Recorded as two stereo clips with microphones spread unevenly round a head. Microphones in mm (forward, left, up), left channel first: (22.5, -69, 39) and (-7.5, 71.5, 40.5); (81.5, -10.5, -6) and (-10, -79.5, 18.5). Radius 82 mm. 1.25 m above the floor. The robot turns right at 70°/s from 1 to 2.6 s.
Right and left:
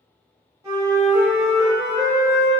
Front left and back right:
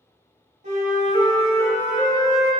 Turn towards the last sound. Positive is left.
turn(degrees=-80)